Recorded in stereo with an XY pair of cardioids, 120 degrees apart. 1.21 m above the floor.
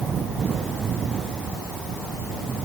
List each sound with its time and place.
Only background noise.